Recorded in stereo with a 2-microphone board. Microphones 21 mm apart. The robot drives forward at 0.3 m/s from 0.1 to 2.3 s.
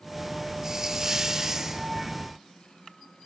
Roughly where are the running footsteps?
I don't hear running footsteps.